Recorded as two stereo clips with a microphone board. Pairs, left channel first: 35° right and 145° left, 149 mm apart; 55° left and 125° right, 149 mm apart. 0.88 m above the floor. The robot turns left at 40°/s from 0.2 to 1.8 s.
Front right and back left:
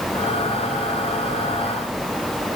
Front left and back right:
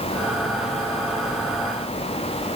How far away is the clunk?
No clunk in this recording.